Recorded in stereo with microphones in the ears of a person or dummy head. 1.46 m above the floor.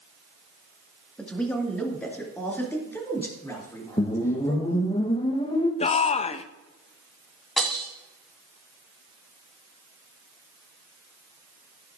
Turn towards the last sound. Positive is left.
turn(degrees=5)  # may be behind; listen again after turning